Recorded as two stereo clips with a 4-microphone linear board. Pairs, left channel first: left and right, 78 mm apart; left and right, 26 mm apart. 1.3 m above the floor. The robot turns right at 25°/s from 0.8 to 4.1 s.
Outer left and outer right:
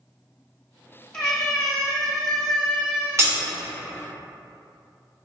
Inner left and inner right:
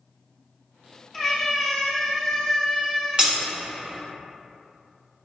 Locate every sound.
1.1 s a cat meowing: 165° left, 1.2 m; by 3.2 s 145° right, 1.2 m
3.2 s breaking glass: 35° right (ahead or behind), 1.3 m; by 3.4 s 30° right (ahead or behind), 1.3 m